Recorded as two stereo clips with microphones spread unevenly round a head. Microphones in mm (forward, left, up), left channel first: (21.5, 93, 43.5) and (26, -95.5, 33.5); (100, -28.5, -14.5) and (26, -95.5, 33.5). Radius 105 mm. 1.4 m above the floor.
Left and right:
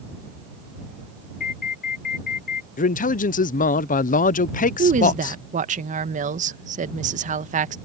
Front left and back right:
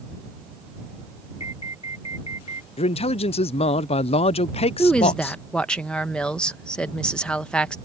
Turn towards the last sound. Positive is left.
turn(degrees=-40)